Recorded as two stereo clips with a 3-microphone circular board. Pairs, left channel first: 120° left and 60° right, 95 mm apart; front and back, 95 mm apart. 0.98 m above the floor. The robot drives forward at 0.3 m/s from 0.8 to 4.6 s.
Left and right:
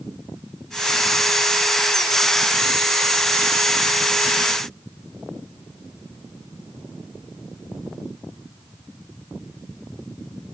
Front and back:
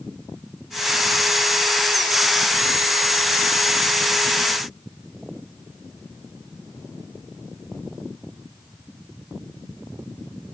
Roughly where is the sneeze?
No sneeze in this recording.